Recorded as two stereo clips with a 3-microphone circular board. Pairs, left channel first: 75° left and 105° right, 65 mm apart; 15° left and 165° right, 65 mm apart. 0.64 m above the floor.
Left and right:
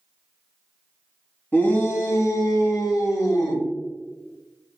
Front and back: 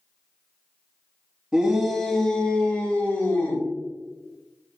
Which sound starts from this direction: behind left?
A shout, at 1.5 s.